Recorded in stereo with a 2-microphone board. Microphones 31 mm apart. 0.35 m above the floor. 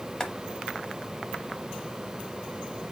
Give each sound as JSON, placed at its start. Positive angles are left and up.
{"t": 0.2, "sound": "boiling", "side_deg": 25, "distance_m": 0.8}